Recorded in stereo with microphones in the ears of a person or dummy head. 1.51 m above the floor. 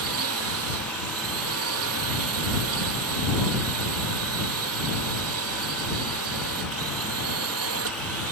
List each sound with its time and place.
0.0 s a drone: 65° right (ahead or behind)